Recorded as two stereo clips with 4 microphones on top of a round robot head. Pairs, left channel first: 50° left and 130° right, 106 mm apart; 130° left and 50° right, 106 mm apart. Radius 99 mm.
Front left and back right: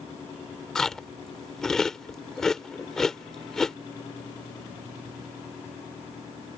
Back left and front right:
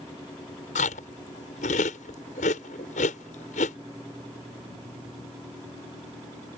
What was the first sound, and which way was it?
Chewing, 135° left.